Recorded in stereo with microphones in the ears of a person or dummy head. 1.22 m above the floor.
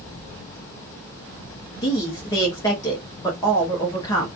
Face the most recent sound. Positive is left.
turn(degrees=25)  # may be behind; listen again after turning